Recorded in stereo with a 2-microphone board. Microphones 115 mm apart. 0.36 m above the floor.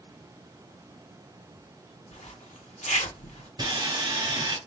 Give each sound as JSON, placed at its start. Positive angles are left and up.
{"t": 2.1, "sound": "a zipper", "side_deg": 80, "distance_m": 0.7}
{"t": 3.6, "sound": "sawing", "side_deg": -40, "distance_m": 2.0}